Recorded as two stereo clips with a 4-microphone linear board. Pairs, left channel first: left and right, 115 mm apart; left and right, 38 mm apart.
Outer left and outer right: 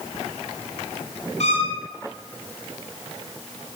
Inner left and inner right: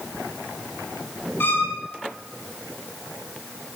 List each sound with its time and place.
1.4 s a violin: 75° left (ahead or behind), 5.5 m